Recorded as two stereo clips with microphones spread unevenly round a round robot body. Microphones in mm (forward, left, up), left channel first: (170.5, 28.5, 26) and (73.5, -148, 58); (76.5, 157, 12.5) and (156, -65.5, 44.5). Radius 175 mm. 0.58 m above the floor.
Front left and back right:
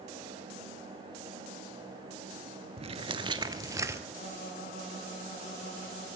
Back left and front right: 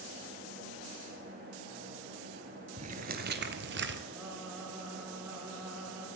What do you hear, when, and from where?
2.8 s footsteps: 105° right, 0.6 m; by 4.0 s 50° right, 1.0 m
4.1 s singing: 10° left, 7.5 m